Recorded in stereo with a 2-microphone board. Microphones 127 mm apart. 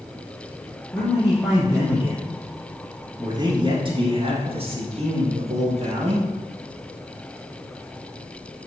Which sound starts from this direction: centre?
A man speaking, at 0.9 s.